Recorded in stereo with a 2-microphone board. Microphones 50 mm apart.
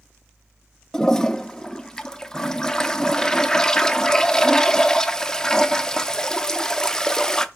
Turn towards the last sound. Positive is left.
turn(degrees=10)  # may be behind; listen again after turning